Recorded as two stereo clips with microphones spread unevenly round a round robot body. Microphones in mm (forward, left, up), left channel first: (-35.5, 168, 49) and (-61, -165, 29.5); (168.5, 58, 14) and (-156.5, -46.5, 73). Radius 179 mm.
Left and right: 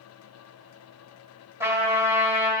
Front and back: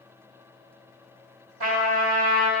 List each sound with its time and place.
1.6 s a trumpet: 175° right, 2.5 m